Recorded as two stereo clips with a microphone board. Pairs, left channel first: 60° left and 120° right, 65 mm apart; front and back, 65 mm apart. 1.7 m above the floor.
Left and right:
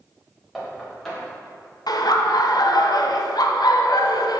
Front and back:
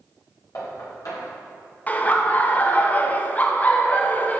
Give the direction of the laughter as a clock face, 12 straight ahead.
10 o'clock.